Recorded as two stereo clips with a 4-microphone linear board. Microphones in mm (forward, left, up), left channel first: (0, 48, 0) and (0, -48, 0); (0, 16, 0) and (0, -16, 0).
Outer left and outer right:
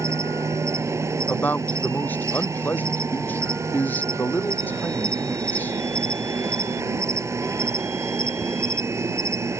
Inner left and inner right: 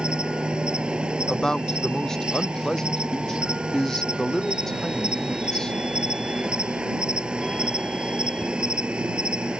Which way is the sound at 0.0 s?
30° right (ahead or behind).